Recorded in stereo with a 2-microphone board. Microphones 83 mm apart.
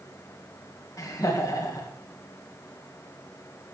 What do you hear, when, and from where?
1.0 s laughter: 45° left (ahead or behind), 2 m